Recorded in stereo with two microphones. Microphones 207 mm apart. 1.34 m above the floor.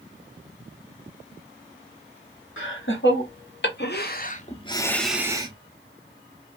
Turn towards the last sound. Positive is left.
turn(degrees=-25)  # may be behind; listen again after turning